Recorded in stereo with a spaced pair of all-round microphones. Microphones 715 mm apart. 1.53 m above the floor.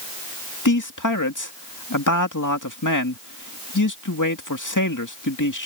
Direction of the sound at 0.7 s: 25° left (ahead or behind).